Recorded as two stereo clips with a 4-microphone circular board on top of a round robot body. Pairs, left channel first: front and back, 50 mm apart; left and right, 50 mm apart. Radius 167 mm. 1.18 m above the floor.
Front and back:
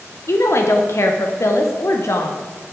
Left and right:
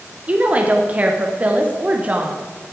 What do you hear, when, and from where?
0.3 s a woman speaking: 30° right, 1.1 m